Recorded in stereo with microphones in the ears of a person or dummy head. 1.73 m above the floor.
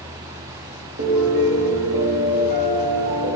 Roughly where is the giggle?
I don't hear a giggle.